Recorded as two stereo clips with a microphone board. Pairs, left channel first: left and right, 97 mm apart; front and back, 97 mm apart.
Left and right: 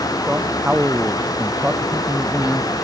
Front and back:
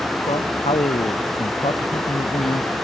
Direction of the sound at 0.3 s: 15° right.